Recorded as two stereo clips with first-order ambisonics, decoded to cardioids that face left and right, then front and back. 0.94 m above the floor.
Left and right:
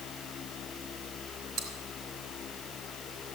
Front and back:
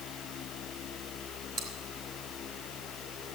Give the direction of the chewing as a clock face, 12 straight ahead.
5 o'clock.